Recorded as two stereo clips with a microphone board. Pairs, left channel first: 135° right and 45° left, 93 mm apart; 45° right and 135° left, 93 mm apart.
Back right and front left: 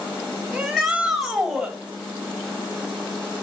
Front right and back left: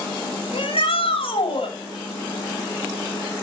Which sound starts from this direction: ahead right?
A shout, at 0.5 s.